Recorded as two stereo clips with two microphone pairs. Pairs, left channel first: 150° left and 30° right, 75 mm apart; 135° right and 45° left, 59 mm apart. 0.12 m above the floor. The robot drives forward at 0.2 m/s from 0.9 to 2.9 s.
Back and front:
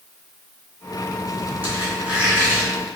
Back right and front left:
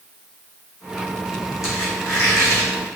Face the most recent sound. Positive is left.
turn(degrees=-110)